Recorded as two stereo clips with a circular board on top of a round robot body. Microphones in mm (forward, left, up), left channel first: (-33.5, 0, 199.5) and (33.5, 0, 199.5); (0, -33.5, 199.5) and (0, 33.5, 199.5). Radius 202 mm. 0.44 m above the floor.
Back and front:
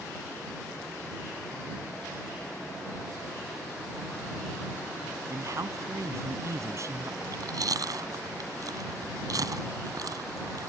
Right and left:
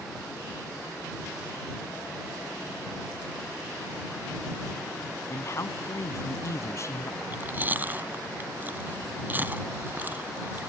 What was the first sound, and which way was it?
A man speaking, 40° right.